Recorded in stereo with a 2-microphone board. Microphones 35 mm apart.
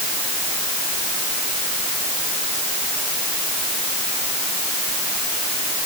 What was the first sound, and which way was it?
Only background noise.